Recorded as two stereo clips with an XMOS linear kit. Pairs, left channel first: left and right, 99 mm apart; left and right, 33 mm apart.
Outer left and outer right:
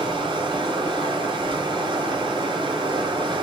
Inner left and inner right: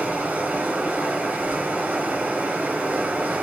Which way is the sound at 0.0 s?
55° right (ahead or behind).